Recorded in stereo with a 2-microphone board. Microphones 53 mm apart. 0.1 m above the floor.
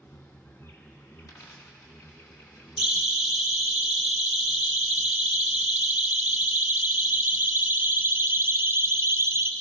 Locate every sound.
0.0 s an insect: 60° left (ahead or behind), 5 m
1.2 s a dropped coin: 80° left, 4.5 m
2.8 s a siren: 5° right (ahead or behind), 4.5 m; by 9.5 s 55° right (ahead or behind), 2.5 m